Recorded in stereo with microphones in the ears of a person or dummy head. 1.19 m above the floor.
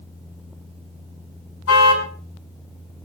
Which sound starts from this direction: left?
A car horn, at 1.7 s.